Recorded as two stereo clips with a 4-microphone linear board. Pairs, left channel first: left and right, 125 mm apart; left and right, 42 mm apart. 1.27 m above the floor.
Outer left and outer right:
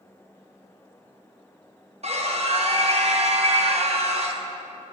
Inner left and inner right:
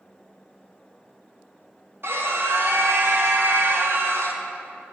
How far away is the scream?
About 1.0 m.